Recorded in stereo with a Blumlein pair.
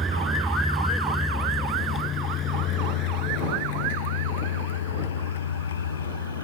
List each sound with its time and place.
0.0 s a vehicle: 10° right; by 6.4 s 70° left